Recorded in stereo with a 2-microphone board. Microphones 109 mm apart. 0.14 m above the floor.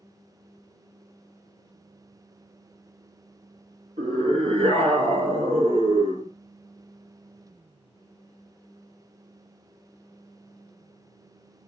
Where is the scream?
65° right (ahead or behind), 4 m; by 6.3 s 55° right (ahead or behind), 2.5 m.